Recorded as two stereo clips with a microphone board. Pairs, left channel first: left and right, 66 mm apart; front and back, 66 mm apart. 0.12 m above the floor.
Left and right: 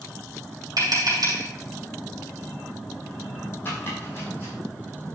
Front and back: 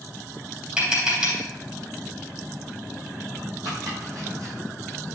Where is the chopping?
145° left, 4 m.